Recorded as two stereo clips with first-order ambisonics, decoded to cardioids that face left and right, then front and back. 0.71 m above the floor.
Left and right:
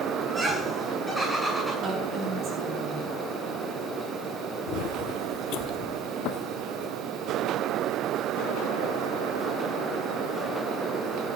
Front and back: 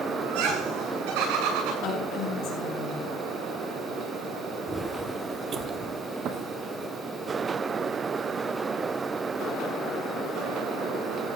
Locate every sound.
0.2 s laughter: 175° right, 8.5 m
1.8 s a woman speaking: 40° right, 5 m
4.7 s footsteps: 100° left, 0.9 m; by 6.9 s 130° left, 2 m